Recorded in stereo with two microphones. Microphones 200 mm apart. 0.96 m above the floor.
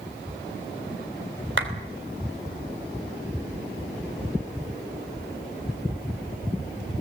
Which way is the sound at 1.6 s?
75° right (ahead or behind).